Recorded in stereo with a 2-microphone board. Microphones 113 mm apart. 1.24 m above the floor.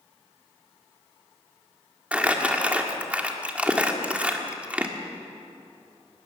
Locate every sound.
2.1 s crumpling: 10° right (ahead or behind), 1.7 m